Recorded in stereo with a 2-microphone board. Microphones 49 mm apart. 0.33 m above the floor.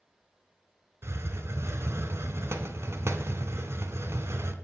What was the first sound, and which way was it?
A hiss, 70° right (ahead or behind).